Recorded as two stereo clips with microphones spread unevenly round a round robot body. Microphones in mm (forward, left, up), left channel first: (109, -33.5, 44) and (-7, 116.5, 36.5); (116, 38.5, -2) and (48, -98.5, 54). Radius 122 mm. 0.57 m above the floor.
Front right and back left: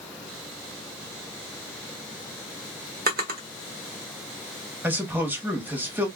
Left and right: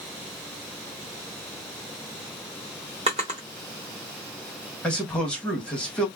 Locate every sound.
3.1 s a drawer: 175° left, 0.6 m
4.8 s a man speaking: 65° left, 1.2 m